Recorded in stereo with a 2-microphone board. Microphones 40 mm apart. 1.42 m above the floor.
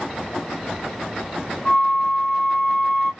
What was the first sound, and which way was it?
A flute, 25° left (ahead or behind).